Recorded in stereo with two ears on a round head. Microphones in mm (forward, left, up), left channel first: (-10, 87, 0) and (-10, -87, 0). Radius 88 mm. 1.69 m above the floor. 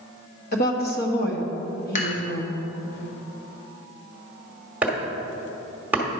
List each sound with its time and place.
0.5 s a woman speaking: 50° left (ahead or behind), 1.3 m
1.9 s dishes clattering: 40° left (ahead or behind), 1.8 m
4.8 s chopping: 10° right (ahead or behind), 1.4 m